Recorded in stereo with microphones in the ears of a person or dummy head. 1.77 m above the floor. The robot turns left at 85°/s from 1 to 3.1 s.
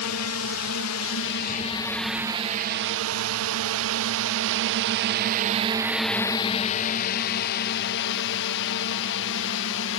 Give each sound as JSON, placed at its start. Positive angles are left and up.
{"t": 0.0, "sound": "a drone", "side_deg": 85}